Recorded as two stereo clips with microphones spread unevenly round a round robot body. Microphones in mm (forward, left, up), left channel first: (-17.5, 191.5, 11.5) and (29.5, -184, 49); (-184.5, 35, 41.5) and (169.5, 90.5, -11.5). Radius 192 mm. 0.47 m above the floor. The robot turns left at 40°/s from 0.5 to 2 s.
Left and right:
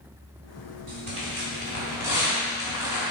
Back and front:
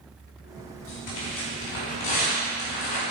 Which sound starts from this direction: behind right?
Tearing paper, at 0.9 s.